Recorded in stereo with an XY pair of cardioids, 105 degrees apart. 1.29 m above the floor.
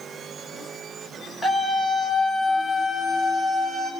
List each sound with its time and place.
1.4 s a scream: straight ahead, 8 m; by 3.9 s 20° right, 7 m